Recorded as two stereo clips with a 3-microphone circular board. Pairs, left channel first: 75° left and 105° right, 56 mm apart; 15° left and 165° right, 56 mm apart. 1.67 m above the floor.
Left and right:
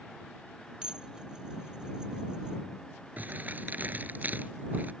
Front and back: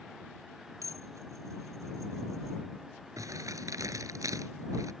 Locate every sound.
0.8 s dishes clattering: straight behind
3.2 s crumpling: 165° right